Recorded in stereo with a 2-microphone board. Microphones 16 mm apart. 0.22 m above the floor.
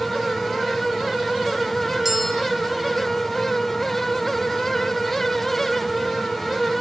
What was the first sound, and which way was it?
A bell, 20° right (ahead or behind).